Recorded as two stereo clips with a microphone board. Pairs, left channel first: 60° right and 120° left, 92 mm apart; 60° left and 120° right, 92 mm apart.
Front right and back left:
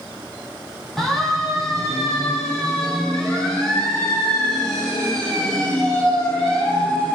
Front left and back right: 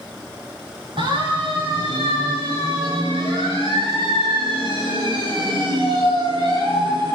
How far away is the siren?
About 7 m.